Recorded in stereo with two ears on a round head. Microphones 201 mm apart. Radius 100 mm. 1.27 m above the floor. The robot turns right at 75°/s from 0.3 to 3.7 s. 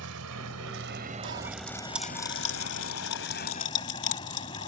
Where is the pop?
60° right (ahead or behind); by 4.7 s 55° left (ahead or behind).